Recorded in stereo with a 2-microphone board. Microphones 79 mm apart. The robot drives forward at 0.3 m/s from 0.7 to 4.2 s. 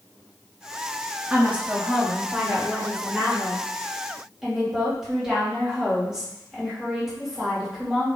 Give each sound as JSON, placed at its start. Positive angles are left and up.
{"t": 1.3, "sound": "a woman speaking", "side_deg": -20, "distance_m": 0.7}